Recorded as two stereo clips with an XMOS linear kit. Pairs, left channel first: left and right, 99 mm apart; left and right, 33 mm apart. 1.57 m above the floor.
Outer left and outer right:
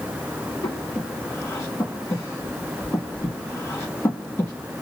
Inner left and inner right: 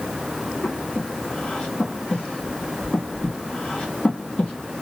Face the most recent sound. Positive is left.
turn(degrees=30)  # may be behind; listen again after turning